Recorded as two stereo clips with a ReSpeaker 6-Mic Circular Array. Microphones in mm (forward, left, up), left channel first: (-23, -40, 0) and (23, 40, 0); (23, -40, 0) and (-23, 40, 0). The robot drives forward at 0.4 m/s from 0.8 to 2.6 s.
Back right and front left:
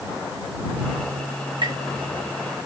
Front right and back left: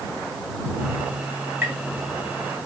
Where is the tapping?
60° left, 1.5 m.